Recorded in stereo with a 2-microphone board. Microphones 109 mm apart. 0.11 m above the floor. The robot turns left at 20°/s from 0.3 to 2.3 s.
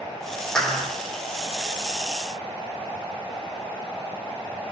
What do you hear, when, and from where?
0.6 s a clap: 5° left (ahead or behind), 5 m; by 0.9 s centre (ahead or behind), 5 m